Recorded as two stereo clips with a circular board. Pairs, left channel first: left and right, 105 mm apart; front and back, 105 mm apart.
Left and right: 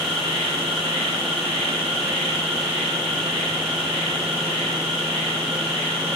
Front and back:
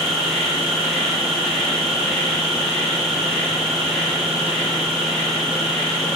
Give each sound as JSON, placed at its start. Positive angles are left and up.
{"t": 0.0, "sound": "an insect", "azimuth_deg": -85, "distance_m": 9.0}